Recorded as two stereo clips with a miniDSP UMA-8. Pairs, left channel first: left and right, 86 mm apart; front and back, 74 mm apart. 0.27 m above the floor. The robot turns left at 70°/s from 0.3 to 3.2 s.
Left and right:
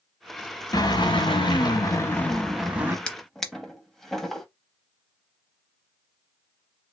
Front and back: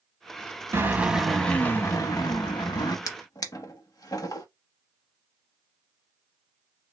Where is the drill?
130° left, 0.6 m; by 3.0 s 30° right, 0.6 m.